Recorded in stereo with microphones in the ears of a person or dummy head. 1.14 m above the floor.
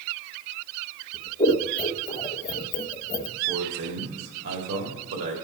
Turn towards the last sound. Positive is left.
turn(degrees=-75)  # may be behind; listen again after turning